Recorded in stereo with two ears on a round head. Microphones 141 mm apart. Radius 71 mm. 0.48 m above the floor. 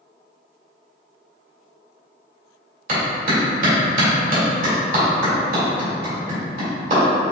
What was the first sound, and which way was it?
A clap, 55° right (ahead or behind).